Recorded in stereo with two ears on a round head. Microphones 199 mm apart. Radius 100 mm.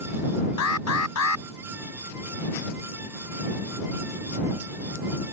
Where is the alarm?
85° left.